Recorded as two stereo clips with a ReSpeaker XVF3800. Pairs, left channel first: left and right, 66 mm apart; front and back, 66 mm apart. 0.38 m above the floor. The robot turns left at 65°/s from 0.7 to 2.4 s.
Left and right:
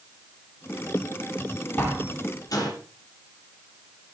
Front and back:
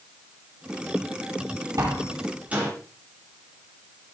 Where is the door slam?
155° left, 9.5 m; by 2.7 s 110° left, 9.5 m.